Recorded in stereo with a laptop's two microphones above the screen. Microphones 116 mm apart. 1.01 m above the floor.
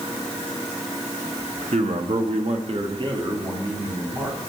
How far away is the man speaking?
About 1.2 m.